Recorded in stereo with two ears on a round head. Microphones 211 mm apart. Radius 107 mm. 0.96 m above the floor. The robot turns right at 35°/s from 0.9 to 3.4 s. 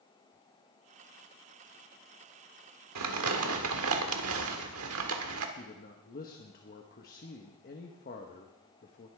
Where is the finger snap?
No finger snap in this recording.